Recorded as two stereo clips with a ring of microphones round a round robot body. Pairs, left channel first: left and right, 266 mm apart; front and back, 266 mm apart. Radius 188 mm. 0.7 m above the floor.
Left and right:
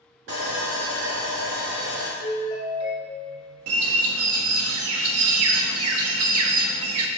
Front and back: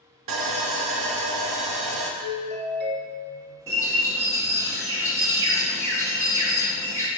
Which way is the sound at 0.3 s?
150° right.